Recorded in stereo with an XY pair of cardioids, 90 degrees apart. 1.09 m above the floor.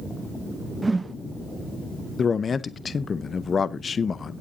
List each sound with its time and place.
0.8 s a whoosh: 25° right, 0.6 m
2.2 s a man speaking: 45° left, 0.6 m